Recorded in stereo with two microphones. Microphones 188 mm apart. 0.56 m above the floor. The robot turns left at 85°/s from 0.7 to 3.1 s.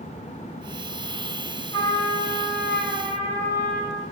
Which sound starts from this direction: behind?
A trumpet, at 1.7 s.